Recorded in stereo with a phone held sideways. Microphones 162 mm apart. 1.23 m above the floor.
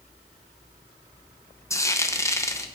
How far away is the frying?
About 0.9 m.